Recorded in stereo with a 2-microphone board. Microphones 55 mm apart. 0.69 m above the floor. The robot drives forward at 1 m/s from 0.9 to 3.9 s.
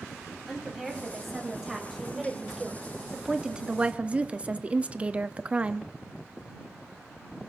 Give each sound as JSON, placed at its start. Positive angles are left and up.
{"t": 0.5, "sound": "a woman speaking", "side_deg": -5, "distance_m": 3.5}